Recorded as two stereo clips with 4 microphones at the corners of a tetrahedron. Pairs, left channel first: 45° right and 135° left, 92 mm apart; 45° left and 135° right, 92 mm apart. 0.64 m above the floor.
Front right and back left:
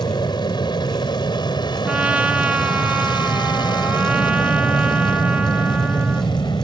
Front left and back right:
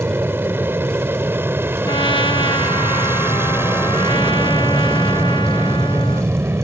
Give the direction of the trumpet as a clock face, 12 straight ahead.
10 o'clock.